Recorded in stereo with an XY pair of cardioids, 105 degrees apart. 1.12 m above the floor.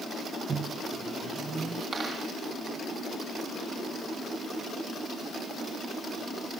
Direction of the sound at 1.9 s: 40° right.